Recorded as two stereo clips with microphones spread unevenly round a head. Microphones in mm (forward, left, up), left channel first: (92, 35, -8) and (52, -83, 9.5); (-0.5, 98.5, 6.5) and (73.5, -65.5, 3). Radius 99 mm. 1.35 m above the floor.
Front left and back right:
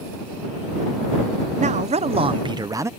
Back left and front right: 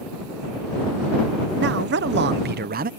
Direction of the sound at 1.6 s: 85° right.